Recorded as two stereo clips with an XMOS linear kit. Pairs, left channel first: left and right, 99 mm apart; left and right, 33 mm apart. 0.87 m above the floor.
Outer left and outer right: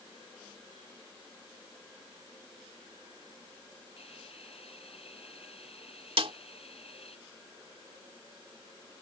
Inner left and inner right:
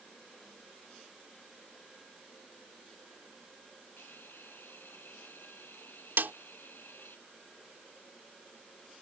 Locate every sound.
4.0 s a hiss: 85° left
6.2 s a snare drum: 75° right (ahead or behind)